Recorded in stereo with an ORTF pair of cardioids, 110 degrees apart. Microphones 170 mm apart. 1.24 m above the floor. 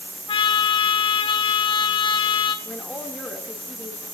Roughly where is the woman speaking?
Ahead.